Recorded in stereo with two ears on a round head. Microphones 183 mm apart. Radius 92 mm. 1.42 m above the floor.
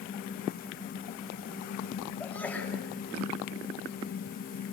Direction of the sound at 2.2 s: 10° left (ahead or behind).